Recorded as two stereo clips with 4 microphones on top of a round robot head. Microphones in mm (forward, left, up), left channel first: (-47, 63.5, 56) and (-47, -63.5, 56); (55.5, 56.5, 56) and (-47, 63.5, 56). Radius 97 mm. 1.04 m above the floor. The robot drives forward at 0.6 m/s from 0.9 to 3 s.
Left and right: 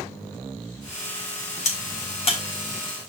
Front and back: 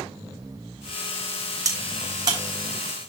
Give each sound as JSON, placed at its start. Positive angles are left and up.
{"t": 1.6, "sound": "a crack", "azimuth_deg": 125, "distance_m": 3.5}